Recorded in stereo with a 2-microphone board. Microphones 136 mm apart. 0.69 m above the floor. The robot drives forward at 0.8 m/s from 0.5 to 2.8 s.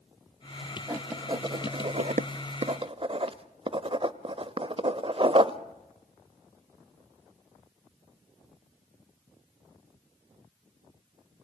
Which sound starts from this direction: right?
Writing, at 0.9 s.